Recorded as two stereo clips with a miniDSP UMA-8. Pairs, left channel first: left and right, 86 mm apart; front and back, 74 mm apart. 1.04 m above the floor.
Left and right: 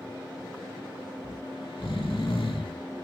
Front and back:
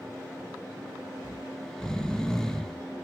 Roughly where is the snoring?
Left.